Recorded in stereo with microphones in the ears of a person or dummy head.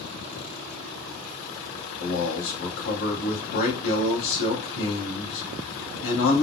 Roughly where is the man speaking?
Left.